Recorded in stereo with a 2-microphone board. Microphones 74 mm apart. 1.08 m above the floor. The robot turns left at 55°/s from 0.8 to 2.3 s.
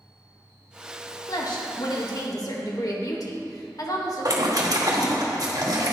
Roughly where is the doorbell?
No doorbell in this recording.